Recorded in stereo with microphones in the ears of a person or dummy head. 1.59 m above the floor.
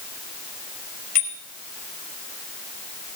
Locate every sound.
1.1 s a bicycle bell: 50° left (ahead or behind), 5.5 m